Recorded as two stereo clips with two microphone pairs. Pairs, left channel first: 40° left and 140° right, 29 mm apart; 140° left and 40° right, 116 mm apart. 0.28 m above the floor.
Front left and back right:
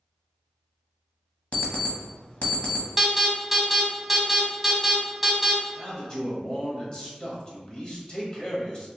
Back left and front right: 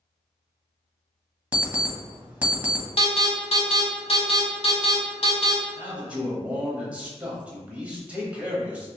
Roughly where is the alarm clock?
Ahead left.